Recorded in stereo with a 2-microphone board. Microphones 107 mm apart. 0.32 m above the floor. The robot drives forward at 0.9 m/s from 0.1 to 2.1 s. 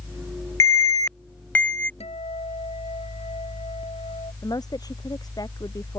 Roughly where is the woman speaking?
Left.